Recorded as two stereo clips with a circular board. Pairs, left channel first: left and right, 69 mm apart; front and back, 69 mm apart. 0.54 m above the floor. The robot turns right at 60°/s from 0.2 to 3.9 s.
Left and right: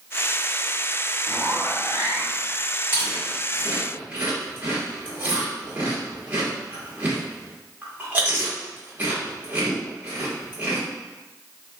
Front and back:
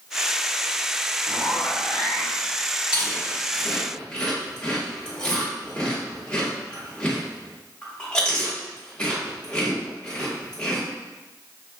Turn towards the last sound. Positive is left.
turn(degrees=-60)